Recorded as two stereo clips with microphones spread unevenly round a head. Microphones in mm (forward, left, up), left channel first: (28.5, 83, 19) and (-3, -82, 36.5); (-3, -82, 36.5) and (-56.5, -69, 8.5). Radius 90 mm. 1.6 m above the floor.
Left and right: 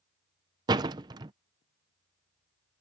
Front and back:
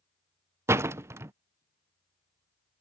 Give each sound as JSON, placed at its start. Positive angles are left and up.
{"t": 0.7, "sound": "a door slam", "azimuth_deg": -135}